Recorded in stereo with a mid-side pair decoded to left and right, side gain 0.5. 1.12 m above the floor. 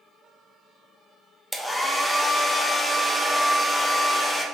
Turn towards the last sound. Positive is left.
turn(degrees=5)